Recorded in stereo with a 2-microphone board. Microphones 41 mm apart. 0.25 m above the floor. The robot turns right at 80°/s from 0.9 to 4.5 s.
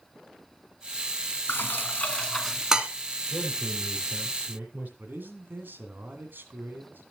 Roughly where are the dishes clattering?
Left.